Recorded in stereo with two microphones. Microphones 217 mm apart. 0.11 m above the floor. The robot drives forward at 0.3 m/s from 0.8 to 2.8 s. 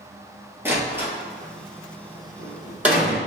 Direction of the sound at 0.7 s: 10° right (ahead or behind).